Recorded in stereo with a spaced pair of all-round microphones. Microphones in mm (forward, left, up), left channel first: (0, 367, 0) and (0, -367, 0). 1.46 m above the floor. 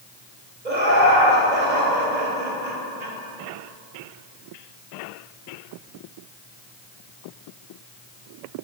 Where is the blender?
I don't hear a blender.